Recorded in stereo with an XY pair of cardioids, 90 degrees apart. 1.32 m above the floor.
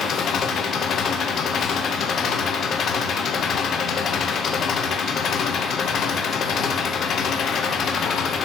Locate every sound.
0.0 s an engine running: 70° left, 1.0 m